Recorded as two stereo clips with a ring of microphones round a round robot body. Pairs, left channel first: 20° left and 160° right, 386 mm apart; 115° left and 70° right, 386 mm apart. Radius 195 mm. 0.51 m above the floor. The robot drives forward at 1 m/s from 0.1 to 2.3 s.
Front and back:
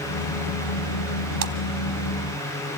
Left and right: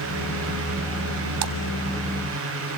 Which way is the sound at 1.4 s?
100° right.